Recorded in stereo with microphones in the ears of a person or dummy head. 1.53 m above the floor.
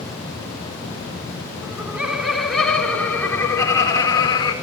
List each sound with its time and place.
1.6 s laughter: 10° right (ahead or behind), 4 m; by 4.5 s 25° left (ahead or behind), 4 m